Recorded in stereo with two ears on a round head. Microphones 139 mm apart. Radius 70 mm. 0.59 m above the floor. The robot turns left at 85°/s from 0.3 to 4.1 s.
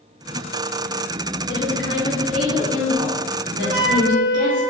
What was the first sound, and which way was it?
A woman speaking, 75° left.